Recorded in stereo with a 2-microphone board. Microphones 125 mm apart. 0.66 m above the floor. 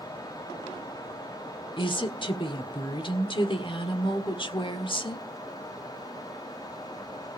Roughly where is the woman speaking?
Left.